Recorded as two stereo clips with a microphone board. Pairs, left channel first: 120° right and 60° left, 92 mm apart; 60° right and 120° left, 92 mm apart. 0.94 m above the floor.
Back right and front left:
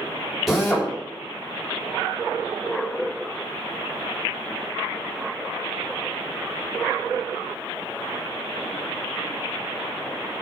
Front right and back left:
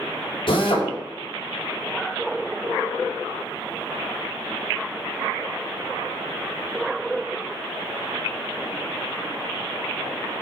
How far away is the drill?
About 4 m.